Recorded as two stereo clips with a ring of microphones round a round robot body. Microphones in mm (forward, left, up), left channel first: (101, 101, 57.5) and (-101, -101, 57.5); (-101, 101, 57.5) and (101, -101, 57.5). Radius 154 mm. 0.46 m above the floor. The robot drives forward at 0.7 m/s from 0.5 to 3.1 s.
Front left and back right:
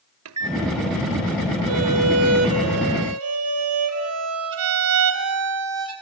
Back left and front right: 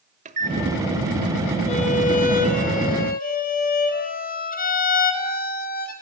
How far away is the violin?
About 2.5 m.